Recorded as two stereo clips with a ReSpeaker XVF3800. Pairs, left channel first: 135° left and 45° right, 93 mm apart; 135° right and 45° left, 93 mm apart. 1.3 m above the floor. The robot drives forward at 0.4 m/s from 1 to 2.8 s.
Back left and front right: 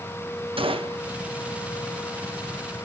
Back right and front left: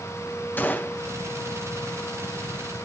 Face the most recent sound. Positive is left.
turn(degrees=-100)